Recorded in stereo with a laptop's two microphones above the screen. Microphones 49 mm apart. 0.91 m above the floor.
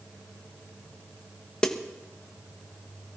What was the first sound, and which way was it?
A snare drum, 15° left (ahead or behind).